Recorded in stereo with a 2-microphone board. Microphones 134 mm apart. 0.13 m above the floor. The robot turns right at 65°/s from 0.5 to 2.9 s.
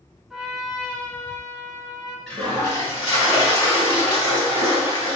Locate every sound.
0.3 s a trumpet: 5° right (ahead or behind), 1.0 m; by 2.2 s 30° left (ahead or behind), 1.0 m
2.3 s a toilet flushing: 10° left, 2 m; by 5.2 s 55° left, 2 m